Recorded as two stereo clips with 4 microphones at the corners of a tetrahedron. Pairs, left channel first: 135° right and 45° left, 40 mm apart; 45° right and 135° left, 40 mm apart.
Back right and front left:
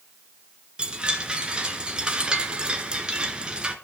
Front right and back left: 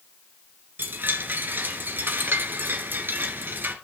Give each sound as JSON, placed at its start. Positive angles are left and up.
{"t": 0.8, "sound": "a chime", "azimuth_deg": 110, "distance_m": 2.0}